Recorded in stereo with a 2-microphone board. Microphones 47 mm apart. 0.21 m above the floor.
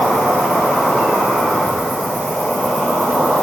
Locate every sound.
0.0 s an insect: 30° left (ahead or behind), 1.0 m